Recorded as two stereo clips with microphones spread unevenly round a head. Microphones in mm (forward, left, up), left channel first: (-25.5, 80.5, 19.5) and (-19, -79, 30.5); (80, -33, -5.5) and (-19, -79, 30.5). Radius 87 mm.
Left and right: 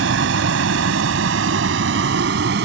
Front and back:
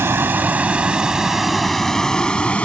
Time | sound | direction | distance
0.0 | a vehicle | 90° right | ?